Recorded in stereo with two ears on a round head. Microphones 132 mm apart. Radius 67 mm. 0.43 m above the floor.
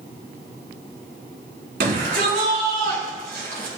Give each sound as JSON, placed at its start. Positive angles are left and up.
{"t": 1.8, "sound": "a shout", "side_deg": -75, "distance_m": 5.0}